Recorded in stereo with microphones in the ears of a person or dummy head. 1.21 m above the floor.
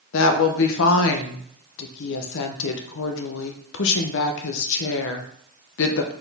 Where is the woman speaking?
70° left (ahead or behind), 0.7 m.